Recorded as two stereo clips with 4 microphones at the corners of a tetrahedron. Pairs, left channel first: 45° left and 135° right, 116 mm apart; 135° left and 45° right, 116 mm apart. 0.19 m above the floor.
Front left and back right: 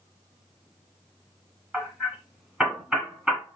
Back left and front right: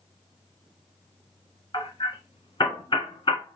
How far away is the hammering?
About 1.6 m.